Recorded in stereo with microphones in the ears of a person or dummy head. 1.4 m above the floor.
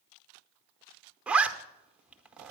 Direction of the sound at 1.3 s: 5° right (ahead or behind).